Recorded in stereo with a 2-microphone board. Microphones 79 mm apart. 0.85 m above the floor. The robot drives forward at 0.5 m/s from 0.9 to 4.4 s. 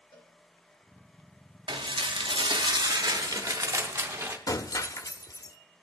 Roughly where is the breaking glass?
Left.